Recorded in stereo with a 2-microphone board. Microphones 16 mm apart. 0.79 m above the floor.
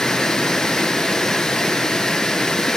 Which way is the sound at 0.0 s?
60° left (ahead or behind).